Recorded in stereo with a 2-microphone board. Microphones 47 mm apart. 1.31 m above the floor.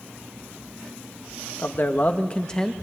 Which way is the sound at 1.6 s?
55° left (ahead or behind).